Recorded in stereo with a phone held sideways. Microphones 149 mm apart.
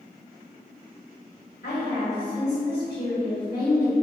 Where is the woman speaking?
85° left, 1.7 m.